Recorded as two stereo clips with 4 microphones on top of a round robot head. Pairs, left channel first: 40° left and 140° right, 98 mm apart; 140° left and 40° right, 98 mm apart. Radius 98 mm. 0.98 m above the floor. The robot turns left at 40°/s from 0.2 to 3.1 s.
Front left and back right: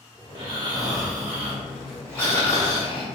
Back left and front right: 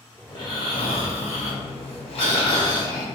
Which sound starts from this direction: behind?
Snoring, at 0.3 s.